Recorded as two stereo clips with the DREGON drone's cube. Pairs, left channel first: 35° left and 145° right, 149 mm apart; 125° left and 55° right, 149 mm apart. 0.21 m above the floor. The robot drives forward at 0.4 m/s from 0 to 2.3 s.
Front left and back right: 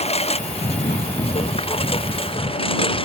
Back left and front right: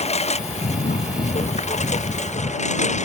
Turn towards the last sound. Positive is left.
turn(degrees=85)